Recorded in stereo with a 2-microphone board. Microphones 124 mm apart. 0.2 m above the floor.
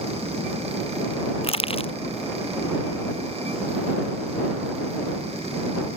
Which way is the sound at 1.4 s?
50° left (ahead or behind).